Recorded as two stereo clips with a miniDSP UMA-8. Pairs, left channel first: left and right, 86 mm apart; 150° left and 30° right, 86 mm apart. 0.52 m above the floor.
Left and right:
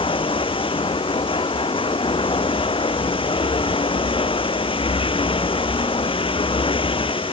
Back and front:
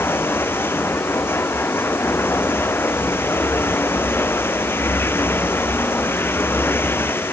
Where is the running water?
85° left.